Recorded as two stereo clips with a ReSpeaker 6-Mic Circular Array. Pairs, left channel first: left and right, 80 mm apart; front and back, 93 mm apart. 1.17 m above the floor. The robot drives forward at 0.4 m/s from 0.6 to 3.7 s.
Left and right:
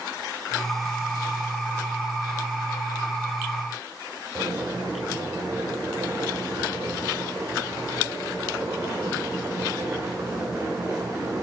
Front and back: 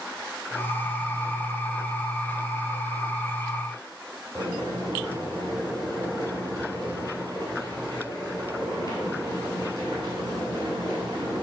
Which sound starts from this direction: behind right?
Boiling, at 4.3 s.